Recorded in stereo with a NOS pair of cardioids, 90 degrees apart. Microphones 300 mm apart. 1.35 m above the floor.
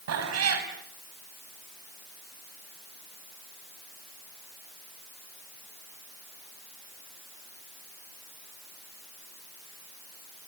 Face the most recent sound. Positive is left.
turn(degrees=-65)